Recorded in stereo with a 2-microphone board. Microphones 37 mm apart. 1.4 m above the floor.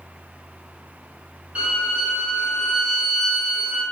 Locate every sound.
1.6 s a violin: 35° right (ahead or behind), 1.9 m